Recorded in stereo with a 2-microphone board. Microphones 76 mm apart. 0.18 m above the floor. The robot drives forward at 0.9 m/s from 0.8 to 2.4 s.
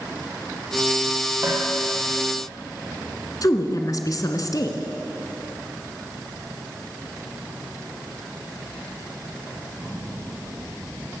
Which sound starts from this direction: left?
A woman speaking, at 3.4 s.